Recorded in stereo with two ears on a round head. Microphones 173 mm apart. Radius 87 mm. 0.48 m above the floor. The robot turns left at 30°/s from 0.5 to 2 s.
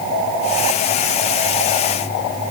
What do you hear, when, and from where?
Only background noise.